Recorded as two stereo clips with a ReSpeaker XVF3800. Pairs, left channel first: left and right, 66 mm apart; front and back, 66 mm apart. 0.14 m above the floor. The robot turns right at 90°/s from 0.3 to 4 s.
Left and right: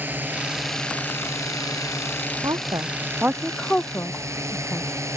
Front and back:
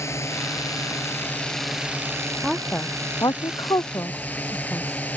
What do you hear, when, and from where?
0.0 s a drone: 35° right; by 5.2 s 60° right
2.4 s a woman speaking: 100° right; by 4.9 s 45° left